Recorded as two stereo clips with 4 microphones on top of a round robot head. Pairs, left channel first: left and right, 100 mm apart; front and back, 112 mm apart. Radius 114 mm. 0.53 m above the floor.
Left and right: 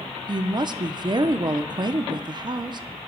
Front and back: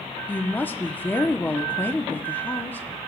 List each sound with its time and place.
0.3 s a woman speaking: 65° right, 0.9 m